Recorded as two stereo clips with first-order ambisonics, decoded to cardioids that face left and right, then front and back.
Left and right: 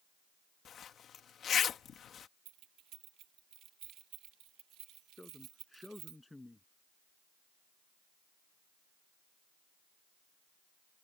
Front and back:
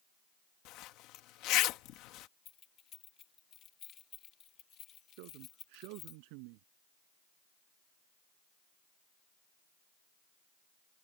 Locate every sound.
0.7 s a zipper: 30° left
2.5 s keys jangling: 50° right
5.2 s a man speaking: 175° left